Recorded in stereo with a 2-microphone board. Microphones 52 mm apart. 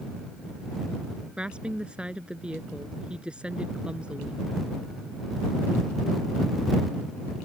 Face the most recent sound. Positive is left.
turn(degrees=-20)  # may be behind; listen again after turning